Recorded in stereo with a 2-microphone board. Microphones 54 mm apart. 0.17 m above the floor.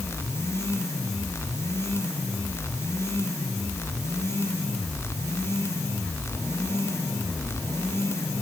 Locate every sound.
Only background noise.